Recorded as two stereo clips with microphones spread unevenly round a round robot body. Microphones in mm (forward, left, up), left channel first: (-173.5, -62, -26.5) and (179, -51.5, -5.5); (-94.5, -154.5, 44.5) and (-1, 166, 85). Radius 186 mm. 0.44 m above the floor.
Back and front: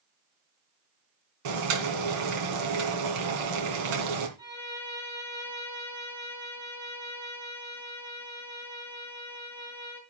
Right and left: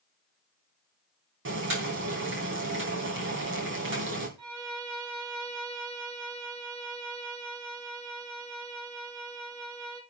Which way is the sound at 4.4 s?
80° left.